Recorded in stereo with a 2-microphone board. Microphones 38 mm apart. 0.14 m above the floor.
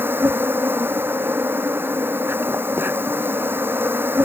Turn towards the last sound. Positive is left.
turn(degrees=-70)  # may be behind; listen again after turning